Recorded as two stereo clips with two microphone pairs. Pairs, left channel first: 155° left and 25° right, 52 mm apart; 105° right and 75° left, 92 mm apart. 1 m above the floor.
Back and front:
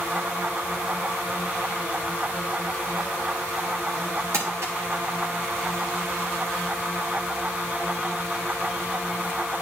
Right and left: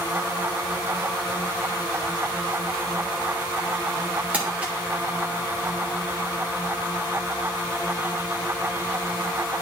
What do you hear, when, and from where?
4.3 s crumpling: straight ahead, 2 m